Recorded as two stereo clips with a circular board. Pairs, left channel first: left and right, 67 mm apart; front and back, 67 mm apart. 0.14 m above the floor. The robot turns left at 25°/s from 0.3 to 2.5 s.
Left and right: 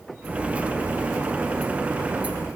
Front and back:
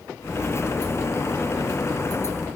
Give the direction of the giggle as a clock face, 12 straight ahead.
I don't hear a giggle.